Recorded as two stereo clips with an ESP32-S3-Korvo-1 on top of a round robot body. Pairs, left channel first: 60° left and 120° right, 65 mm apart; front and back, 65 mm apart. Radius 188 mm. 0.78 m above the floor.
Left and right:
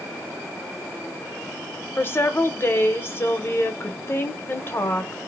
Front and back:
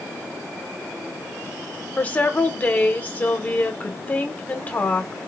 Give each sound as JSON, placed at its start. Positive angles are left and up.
{"t": 2.0, "sound": "a woman speaking", "azimuth_deg": 40, "distance_m": 1.0}